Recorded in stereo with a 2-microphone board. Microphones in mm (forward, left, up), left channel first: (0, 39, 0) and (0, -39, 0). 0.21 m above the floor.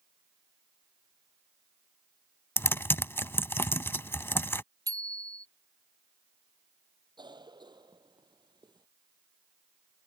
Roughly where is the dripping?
I don't hear dripping.